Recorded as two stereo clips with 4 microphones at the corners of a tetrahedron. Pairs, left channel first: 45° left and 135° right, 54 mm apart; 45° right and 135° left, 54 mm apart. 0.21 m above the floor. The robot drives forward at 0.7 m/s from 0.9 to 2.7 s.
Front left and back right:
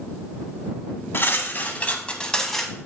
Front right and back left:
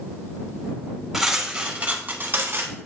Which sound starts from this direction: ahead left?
Cutlery clinking, at 1.1 s.